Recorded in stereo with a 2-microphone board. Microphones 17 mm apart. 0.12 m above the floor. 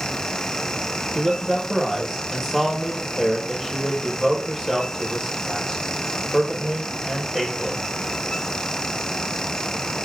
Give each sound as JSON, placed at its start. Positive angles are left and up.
{"t": 1.1, "sound": "a man speaking", "side_deg": -15, "distance_m": 2.0}